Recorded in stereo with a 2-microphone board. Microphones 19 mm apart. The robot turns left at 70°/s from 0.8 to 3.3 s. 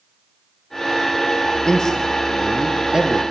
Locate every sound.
1.6 s a man speaking: 45° left, 3 m; by 3.2 s 65° right, 3 m